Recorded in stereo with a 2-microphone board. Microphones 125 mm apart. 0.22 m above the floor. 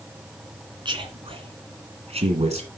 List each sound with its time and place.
0.8 s a man speaking: 40° right (ahead or behind), 2 m; by 2.7 s 60° right (ahead or behind), 2.0 m